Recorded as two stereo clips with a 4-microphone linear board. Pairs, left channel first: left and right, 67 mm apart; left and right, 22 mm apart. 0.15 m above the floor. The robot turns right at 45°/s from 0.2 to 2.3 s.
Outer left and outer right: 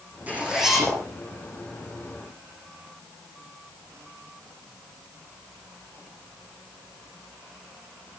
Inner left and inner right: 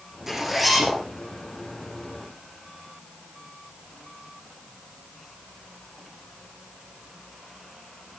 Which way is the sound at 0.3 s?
25° right.